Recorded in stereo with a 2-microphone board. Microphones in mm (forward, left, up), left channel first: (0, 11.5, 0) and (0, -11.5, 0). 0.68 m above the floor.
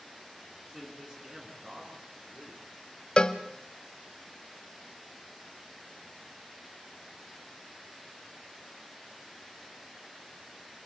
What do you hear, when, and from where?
0.7 s a man speaking: 25° right (ahead or behind), 8.5 m; by 2.6 s 20° right (ahead or behind), 9 m
3.2 s a cowbell: 40° left (ahead or behind), 1.1 m